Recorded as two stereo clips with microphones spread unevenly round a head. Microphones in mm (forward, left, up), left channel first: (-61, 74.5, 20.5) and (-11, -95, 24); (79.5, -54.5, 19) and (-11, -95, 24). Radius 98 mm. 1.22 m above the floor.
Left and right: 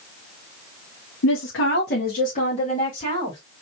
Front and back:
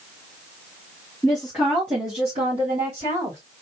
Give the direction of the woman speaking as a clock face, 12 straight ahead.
8 o'clock.